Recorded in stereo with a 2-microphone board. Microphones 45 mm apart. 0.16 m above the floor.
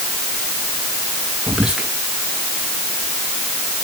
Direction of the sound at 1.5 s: 15° right (ahead or behind).